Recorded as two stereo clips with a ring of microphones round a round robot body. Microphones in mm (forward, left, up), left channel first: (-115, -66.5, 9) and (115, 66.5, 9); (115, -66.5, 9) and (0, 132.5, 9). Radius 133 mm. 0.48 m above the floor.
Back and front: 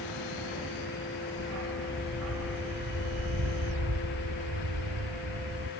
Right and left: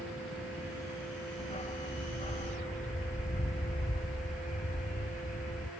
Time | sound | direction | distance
1.4 | a dog barking | 5° left | ?